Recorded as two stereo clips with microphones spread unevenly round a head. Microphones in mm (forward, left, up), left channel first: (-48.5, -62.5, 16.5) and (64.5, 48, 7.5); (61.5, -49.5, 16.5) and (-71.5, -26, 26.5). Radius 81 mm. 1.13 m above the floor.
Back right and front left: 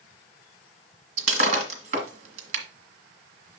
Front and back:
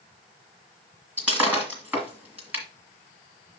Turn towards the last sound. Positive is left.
turn(degrees=90)